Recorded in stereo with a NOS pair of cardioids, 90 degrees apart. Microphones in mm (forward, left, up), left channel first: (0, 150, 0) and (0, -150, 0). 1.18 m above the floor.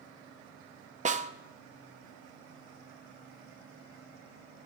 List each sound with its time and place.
1.1 s a snare drum: 25° right, 0.6 m